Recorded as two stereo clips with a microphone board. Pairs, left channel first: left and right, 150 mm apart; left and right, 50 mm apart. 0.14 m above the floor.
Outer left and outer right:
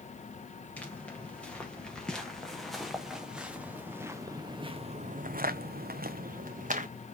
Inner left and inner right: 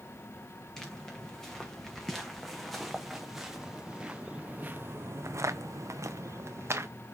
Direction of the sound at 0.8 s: 10° left (ahead or behind).